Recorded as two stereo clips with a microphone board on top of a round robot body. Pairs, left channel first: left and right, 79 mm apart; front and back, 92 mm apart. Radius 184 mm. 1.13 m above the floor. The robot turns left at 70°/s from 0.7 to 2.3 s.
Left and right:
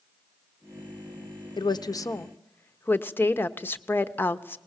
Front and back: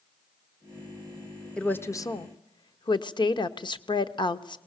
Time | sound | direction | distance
1.6 | a woman speaking | 80° left | 0.9 m